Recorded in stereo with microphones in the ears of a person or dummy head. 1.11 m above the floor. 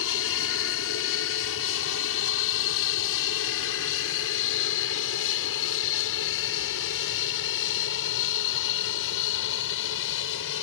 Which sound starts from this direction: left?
An aircraft, at 0.0 s.